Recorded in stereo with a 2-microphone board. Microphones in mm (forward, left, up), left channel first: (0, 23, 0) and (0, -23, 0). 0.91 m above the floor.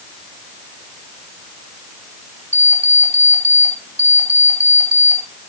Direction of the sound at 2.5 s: 40° right (ahead or behind).